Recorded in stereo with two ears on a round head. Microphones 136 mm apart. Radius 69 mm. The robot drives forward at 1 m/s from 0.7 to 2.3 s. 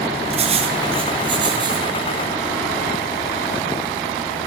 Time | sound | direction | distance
0.3 | writing | 45° right (ahead or behind) | 2.5 m